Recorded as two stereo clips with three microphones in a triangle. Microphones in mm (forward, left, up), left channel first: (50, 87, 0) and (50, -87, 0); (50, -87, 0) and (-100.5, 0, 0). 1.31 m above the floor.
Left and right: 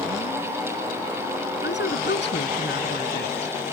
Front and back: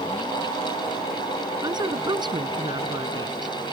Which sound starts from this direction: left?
A woman speaking, at 1.6 s.